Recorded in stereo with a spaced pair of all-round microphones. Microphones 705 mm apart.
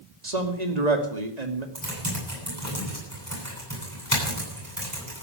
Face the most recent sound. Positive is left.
turn(degrees=-25)  # may be behind; listen again after turning